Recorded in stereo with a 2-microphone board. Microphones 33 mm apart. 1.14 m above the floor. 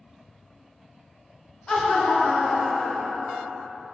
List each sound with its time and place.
1.7 s laughter: 20° left (ahead or behind), 0.7 m; by 3.6 s 10° left (ahead or behind), 2 m